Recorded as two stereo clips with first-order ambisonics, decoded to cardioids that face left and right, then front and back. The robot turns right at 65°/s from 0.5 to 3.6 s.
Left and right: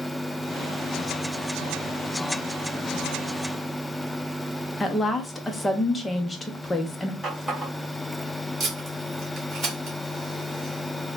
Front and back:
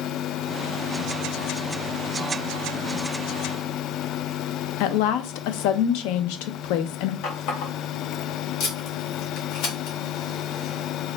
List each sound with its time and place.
4.8 s a woman speaking: 15° left, 0.5 m
7.2 s a running tap: 5° right, 1.9 m
8.6 s tape being pulled: 20° right, 1.8 m